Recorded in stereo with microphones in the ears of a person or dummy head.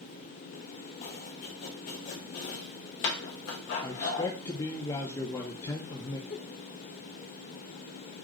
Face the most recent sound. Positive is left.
turn(degrees=55)  # may be behind; listen again after turning